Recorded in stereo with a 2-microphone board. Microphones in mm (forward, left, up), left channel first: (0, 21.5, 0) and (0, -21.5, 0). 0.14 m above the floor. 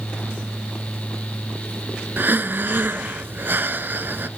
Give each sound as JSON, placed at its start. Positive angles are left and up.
{"t": 2.2, "sound": "breathing", "side_deg": -50, "distance_m": 0.5}